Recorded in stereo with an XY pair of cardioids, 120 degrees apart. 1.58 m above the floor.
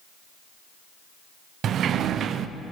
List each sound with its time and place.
1.6 s a sliding door: 55° right, 0.6 m